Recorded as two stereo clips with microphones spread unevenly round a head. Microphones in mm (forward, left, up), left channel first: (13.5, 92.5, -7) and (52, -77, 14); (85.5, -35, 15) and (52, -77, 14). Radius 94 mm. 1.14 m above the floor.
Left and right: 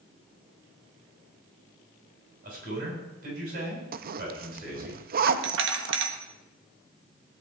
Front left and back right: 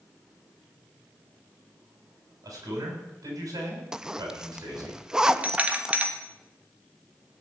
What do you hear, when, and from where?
2.4 s a man speaking: 130° right, 6.5 m
3.9 s a zipper: 50° right, 0.7 m
5.3 s a doorbell: 65° right, 1.9 m